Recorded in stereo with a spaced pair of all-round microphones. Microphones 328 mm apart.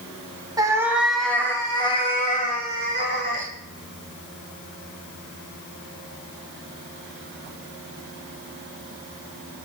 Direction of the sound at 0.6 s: 10° right (ahead or behind).